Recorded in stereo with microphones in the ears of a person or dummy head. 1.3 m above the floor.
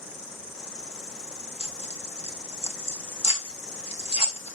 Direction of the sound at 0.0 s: 65° left (ahead or behind).